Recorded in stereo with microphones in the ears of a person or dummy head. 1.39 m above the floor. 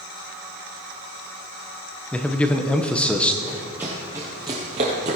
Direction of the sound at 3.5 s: 5° right (ahead or behind).